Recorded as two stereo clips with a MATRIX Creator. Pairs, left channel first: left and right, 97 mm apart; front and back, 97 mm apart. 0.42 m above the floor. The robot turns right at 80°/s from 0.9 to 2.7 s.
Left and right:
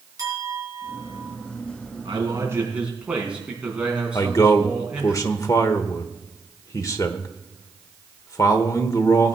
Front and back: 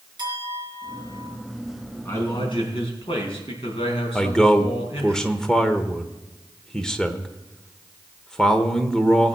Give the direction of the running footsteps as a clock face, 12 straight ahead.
I don't hear running footsteps.